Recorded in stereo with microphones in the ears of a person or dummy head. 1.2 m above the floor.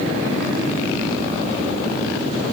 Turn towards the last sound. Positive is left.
No sound to turn to.